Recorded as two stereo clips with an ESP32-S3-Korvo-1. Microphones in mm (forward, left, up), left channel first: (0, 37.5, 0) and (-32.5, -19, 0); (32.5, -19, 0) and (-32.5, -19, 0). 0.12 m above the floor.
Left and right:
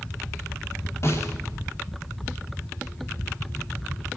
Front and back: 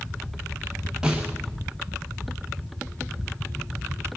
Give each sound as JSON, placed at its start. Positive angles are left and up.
{"t": 1.0, "sound": "a snare drum", "azimuth_deg": 100, "distance_m": 3.0}